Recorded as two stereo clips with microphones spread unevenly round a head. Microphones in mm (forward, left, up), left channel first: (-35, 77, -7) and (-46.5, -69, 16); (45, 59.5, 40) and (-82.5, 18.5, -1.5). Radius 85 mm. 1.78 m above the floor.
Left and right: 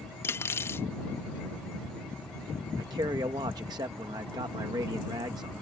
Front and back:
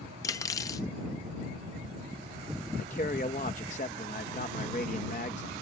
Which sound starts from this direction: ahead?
Cutlery clinking, at 0.2 s.